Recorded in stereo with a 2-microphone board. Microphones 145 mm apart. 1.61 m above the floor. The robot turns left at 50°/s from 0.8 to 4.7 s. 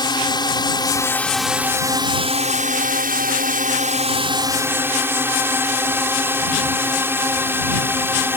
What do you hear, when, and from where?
0.0 s a drone: 30° left; by 8.4 s 165° right